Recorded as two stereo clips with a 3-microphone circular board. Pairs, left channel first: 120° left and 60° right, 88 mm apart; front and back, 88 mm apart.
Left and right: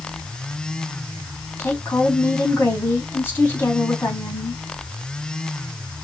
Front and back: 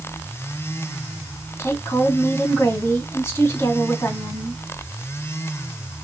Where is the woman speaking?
60° left, 3 m.